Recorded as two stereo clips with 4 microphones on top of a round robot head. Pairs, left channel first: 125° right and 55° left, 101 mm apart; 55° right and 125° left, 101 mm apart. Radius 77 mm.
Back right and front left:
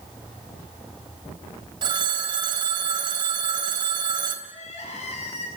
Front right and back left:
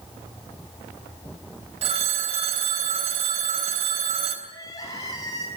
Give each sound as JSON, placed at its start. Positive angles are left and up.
{"t": 1.8, "sound": "a phone ringing", "azimuth_deg": 100, "distance_m": 3.0}
{"t": 4.5, "sound": "crying", "azimuth_deg": -115, "distance_m": 8.5}